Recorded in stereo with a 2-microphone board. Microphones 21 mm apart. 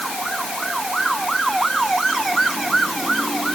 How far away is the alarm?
I don't hear an alarm.